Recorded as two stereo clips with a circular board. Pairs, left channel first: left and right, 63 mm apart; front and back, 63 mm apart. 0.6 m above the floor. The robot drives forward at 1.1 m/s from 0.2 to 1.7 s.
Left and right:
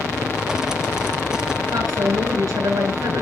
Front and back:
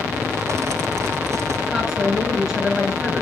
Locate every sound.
1.7 s a woman speaking: 100° right, 7 m